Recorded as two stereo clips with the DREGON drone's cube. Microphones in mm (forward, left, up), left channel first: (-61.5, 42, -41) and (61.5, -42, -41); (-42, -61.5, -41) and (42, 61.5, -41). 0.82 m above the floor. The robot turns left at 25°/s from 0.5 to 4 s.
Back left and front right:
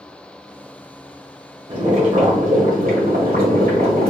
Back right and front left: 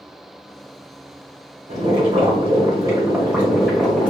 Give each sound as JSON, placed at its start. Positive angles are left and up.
{"t": 1.7, "sound": "boiling", "azimuth_deg": 15, "distance_m": 1.8}